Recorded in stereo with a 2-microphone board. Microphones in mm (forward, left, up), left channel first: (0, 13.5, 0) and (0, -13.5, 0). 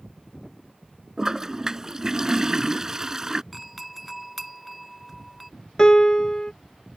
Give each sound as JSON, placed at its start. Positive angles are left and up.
{"t": 1.2, "sound": "a toilet flushing", "side_deg": -20}
{"t": 3.5, "sound": "a doorbell", "side_deg": 0}
{"t": 5.8, "sound": "a piano", "side_deg": 25}